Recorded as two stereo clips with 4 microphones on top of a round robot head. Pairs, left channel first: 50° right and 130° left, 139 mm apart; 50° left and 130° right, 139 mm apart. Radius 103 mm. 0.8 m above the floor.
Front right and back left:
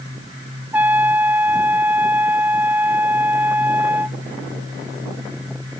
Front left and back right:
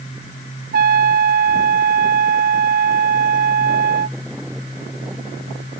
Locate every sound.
0.7 s a trumpet: 150° right